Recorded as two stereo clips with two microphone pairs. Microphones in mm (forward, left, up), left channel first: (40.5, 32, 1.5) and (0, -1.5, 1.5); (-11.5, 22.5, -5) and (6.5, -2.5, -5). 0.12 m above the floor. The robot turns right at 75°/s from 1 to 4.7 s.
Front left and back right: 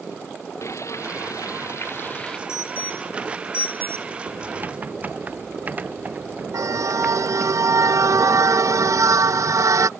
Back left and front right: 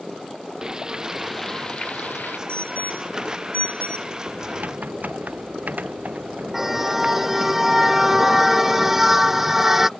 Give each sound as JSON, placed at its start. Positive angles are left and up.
{"t": 0.6, "sound": "frying", "azimuth_deg": 15}
{"t": 2.5, "sound": "an alarm", "azimuth_deg": 75}
{"t": 4.3, "sound": "typing on a keyboard", "azimuth_deg": -110}
{"t": 6.5, "sound": "a car horn", "azimuth_deg": -130}